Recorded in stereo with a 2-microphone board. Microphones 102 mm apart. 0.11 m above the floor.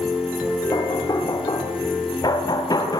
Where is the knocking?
40° left (ahead or behind), 2.5 m.